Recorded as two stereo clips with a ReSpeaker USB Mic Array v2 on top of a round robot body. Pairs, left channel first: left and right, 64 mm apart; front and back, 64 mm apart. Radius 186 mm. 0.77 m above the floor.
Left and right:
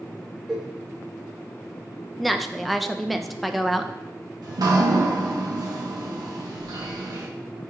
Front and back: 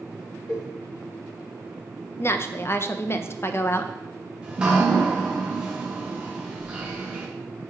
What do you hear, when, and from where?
0.5 s a cowbell: 5° right, 1.1 m
2.2 s a woman speaking: straight ahead, 0.5 m
4.4 s dripping: 105° right, 0.7 m